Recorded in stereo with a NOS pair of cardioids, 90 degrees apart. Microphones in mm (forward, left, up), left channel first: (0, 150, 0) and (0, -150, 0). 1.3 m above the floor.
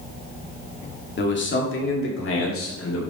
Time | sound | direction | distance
1.2 | a man speaking | 35° left | 2.5 m